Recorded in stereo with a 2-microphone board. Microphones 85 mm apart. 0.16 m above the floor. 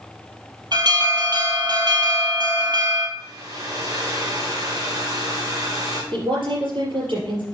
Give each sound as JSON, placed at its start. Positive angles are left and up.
{"t": 0.7, "sound": "an alarm", "side_deg": -60, "distance_m": 2.5}
{"t": 3.2, "sound": "a hair dryer", "side_deg": -40, "distance_m": 2.5}
{"t": 6.1, "sound": "a woman speaking", "side_deg": -75, "distance_m": 5.0}